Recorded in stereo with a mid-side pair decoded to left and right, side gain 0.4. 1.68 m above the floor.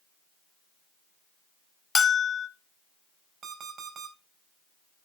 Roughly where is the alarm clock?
Ahead right.